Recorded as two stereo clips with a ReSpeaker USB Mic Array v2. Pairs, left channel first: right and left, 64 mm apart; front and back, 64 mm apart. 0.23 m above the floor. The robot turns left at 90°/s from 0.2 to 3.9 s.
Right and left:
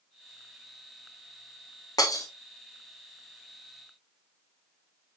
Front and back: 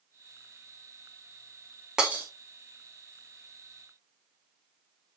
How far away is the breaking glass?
About 1.5 m.